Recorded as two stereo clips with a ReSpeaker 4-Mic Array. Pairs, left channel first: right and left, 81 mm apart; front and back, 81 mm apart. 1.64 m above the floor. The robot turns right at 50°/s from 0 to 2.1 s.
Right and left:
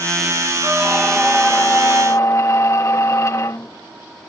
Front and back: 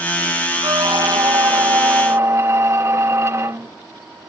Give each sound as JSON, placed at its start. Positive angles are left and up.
{"t": 0.6, "sound": "a squeak", "azimuth_deg": 155}